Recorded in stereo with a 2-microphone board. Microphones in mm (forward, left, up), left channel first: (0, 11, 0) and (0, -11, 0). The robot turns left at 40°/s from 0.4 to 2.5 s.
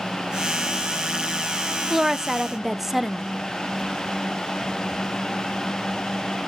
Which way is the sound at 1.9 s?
20° right (ahead or behind).